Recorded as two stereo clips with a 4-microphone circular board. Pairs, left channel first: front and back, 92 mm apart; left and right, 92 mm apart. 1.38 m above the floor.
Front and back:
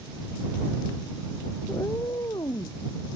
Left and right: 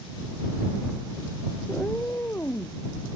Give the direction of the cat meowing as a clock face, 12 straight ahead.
11 o'clock.